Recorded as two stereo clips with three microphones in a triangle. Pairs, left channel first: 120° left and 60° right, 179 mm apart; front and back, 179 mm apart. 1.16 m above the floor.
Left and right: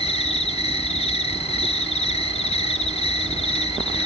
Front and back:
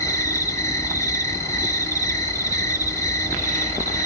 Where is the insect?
70° left, 1.2 m.